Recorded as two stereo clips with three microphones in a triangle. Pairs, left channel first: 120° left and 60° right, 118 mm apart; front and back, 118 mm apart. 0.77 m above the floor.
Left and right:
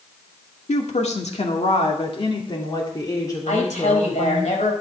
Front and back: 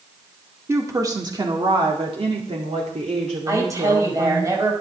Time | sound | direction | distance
0.7 | a woman speaking | 115° left | 1.9 m
3.5 | a woman speaking | 120° left | 4.5 m